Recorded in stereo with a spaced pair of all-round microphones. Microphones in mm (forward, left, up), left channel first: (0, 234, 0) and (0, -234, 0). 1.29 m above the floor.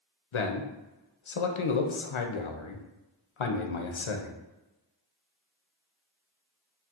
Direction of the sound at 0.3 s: 85° left.